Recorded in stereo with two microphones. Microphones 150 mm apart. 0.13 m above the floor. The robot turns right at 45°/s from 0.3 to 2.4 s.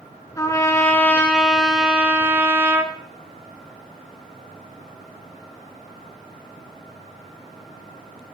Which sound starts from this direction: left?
A trumpet, at 0.4 s.